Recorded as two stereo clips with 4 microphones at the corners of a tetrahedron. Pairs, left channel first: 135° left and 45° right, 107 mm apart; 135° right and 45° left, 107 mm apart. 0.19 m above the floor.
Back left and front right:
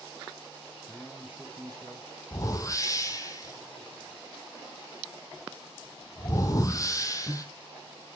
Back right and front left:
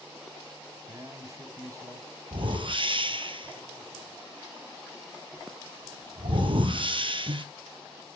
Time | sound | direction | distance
0.8 | a man speaking | 70° left | 1.1 m
2.3 | a whoosh | 80° left | 1.2 m